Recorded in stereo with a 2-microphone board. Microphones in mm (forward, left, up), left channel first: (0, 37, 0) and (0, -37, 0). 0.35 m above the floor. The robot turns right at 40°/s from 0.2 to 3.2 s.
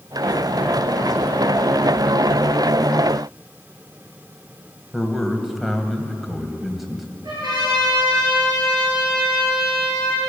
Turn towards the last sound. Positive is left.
turn(degrees=-75)  # may be behind; listen again after turning